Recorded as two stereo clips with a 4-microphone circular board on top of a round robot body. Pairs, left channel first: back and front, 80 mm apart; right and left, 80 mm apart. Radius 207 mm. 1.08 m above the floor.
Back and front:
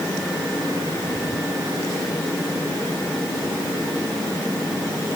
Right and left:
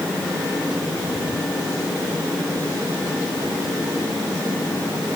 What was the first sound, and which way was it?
Only background noise.